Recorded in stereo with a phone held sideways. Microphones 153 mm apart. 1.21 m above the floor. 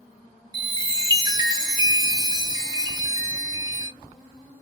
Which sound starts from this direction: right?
A chime, at 0.5 s.